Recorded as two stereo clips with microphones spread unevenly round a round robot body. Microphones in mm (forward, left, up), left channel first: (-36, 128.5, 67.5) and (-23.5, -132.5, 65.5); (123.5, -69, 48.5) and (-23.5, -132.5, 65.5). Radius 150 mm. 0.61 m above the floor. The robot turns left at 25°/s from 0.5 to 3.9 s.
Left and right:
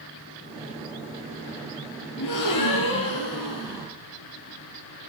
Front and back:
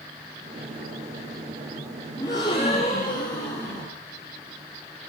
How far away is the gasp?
About 2.5 m.